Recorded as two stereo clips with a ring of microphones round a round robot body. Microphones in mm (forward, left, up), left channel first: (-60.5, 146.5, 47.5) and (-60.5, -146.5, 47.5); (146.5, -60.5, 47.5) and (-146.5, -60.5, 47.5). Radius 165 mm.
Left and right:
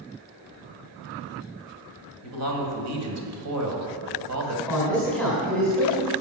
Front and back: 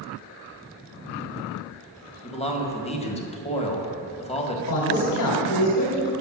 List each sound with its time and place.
2.2 s a man speaking: 65° right, 2.5 m
4.7 s a man speaking: 5° left, 3 m